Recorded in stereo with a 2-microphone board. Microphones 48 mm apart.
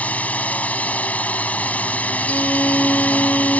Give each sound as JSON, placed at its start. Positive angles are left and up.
{"t": 0.0, "sound": "a drone", "side_deg": 30}
{"t": 2.3, "sound": "a violin", "side_deg": 35}